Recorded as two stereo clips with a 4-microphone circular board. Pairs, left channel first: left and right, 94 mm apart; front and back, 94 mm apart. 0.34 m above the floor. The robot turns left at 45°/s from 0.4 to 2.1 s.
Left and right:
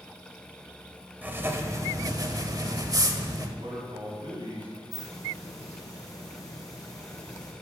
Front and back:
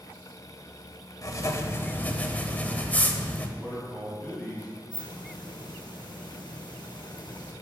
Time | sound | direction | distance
1.2 | writing | 25° right | 1.0 m
3.6 | a man speaking | 75° right | 3 m
4.9 | a hiss | 35° left | 3 m